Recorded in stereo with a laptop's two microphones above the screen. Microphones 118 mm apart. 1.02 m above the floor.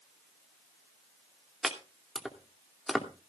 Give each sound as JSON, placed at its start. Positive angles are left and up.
{"t": 1.6, "sound": "chopping", "side_deg": 0, "distance_m": 2.5}